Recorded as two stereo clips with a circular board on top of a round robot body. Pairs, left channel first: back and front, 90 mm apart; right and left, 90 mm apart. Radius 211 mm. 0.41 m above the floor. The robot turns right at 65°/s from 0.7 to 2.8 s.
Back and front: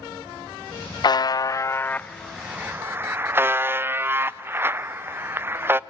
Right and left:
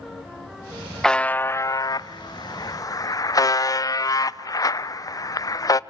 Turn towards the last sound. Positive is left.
turn(degrees=-60)